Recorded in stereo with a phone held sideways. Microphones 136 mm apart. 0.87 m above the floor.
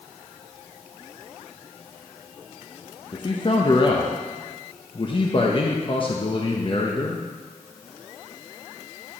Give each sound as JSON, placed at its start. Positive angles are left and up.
{"t": 3.1, "sound": "a man speaking", "side_deg": 40, "distance_m": 0.9}